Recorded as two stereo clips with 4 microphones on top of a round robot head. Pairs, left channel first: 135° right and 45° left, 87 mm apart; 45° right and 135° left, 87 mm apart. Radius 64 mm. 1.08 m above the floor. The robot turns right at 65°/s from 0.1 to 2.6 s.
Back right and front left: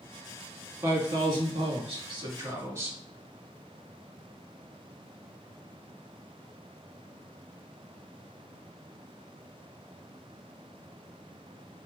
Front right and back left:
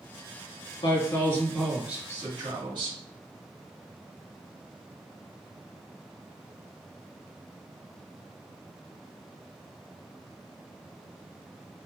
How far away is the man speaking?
About 1.4 m.